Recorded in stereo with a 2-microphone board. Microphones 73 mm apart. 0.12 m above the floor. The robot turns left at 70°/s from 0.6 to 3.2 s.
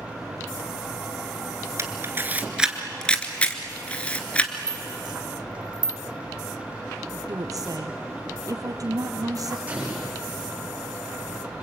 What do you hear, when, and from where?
1.8 s a camera shutter: 40° right (ahead or behind), 1.9 m; by 4.5 s 20° left (ahead or behind), 1.9 m
4.7 s a rattle: 70° right (ahead or behind), 1.1 m
7.3 s a woman speaking: 55° right (ahead or behind), 3 m
9.7 s an explosion: 20° right (ahead or behind), 6.5 m